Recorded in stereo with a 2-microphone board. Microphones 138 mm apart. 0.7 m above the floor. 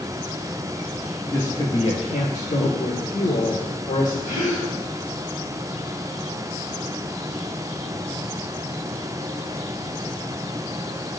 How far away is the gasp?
About 3.5 m.